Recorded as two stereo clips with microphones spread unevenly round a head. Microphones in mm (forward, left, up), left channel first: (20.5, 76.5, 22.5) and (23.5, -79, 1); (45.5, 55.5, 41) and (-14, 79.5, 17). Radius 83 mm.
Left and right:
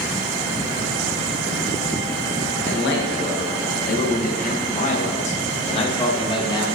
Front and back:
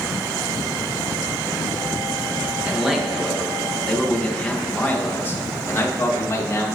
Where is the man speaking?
80° left, 2 m; by 6.7 s 25° left, 2.5 m.